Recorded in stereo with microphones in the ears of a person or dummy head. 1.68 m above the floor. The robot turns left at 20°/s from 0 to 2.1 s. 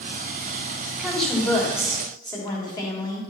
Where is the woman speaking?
Centre (ahead or behind), 3 m; by 3.2 s 20° left (ahead or behind), 3 m.